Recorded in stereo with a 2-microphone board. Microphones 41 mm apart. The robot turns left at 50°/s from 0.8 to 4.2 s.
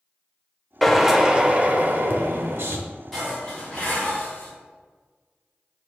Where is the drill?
5° left, 0.7 m; by 2.8 s 95° right, 0.7 m.